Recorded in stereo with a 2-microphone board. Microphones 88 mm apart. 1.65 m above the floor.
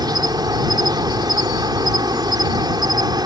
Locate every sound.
0.0 s an insect: 50° right (ahead or behind)